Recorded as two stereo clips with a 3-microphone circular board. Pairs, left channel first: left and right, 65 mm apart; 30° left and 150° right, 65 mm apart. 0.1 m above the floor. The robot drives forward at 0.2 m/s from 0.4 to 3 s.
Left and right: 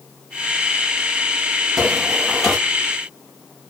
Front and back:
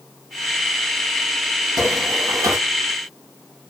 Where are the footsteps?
Straight behind, 2 m.